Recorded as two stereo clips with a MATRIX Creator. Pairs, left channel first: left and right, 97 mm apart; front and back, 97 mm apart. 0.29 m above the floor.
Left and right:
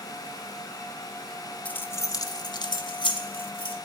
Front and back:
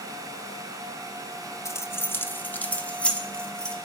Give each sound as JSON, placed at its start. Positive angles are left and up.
{"t": 1.6, "sound": "keys jangling", "azimuth_deg": 25, "distance_m": 0.6}